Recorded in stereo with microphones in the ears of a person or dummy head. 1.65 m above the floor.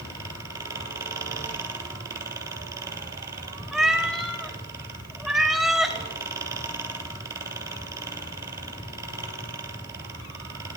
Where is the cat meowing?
Centre (ahead or behind), 1.0 m.